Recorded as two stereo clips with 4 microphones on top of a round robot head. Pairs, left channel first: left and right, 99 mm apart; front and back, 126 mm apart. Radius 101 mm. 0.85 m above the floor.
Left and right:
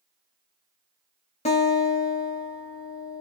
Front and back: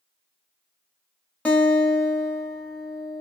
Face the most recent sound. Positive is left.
turn(degrees=80)